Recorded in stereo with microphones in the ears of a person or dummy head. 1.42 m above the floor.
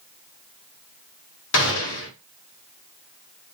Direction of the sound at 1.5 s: 70° left (ahead or behind).